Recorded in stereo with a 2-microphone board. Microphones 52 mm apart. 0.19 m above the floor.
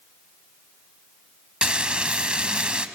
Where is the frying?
20° right (ahead or behind), 0.8 m.